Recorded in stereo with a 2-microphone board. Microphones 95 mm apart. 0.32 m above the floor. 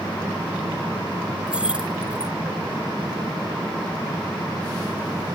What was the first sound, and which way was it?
Keys jangling, 10° right (ahead or behind).